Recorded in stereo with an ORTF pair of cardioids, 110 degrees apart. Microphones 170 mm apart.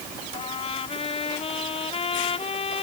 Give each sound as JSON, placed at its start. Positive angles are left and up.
{"t": 0.3, "sound": "a trumpet", "azimuth_deg": 35}